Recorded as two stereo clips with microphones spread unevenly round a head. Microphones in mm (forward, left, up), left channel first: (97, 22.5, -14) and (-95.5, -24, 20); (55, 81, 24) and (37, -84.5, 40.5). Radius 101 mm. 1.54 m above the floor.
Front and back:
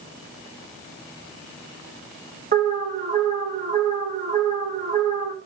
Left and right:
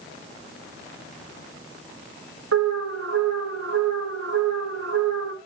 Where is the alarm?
110° right, 1.6 m.